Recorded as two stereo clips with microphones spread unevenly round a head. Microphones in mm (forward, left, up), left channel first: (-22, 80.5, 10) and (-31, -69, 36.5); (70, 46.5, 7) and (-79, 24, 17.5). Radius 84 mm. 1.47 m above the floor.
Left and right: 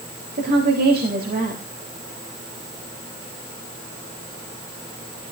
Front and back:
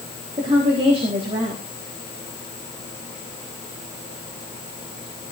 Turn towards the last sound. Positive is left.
turn(degrees=-115)